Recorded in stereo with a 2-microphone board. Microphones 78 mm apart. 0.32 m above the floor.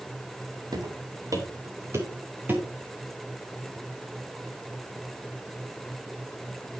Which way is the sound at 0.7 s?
60° right (ahead or behind).